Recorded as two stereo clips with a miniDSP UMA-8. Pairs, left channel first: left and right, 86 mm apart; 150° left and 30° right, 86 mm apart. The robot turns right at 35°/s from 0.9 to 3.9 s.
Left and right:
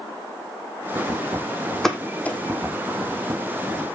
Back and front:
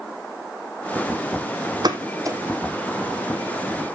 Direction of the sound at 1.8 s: 5° left.